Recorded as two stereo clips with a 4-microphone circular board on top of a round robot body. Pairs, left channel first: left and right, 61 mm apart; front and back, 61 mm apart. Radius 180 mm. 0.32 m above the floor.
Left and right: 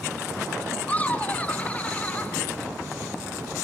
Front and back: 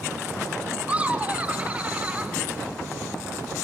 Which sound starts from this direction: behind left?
Laughter, at 0.9 s.